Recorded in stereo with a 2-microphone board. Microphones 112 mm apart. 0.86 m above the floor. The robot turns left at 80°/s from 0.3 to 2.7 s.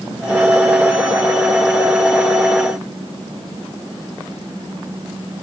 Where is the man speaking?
No man speaking in this recording.